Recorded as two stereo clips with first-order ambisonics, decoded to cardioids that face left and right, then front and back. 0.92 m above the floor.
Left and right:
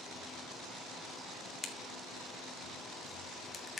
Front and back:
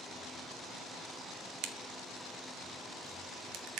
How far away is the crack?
About 1.6 m.